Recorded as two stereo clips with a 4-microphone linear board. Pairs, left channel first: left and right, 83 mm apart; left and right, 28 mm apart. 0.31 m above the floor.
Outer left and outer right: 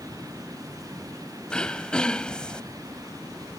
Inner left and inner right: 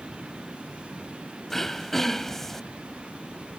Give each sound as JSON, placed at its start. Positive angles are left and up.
{"t": 1.5, "sound": "throat clearing", "side_deg": 10}